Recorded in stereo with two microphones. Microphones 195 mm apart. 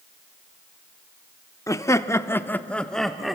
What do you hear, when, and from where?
1.7 s laughter: 15° left (ahead or behind), 0.9 m; by 3.4 s centre (ahead or behind), 0.9 m